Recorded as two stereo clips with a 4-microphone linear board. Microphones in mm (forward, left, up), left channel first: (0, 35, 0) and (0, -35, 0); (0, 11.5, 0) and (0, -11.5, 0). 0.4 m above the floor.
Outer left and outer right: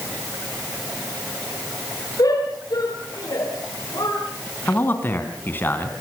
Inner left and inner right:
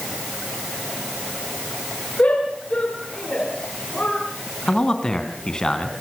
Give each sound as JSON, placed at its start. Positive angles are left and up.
{"t": 2.2, "sound": "a shout", "side_deg": 60, "distance_m": 6.5}
{"t": 4.7, "sound": "a man speaking", "side_deg": 30, "distance_m": 3.0}